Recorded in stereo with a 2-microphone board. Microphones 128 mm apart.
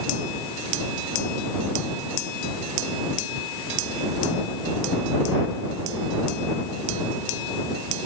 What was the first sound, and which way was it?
Only background noise.